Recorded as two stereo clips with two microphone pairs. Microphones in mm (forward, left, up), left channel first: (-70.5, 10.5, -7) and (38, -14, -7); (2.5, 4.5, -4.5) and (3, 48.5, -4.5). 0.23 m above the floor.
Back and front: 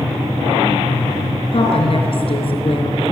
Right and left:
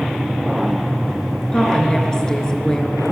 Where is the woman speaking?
165° right, 4 m.